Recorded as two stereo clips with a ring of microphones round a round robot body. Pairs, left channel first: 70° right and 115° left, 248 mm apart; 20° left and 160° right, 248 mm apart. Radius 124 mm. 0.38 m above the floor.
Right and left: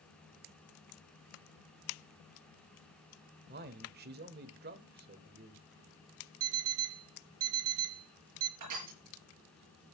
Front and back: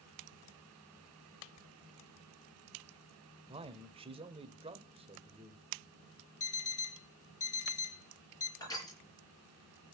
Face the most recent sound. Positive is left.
turn(degrees=100)